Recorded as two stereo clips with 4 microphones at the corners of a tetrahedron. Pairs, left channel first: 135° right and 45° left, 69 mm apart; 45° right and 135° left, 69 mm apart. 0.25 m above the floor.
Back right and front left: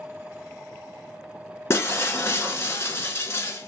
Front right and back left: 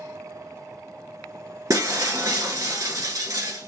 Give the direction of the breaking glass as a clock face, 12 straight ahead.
6 o'clock.